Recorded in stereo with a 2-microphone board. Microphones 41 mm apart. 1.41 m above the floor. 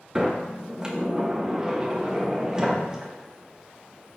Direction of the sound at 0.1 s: 20° right (ahead or behind).